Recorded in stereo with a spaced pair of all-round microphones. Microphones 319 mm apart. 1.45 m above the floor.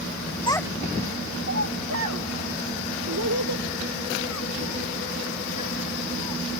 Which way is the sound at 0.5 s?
15° left (ahead or behind).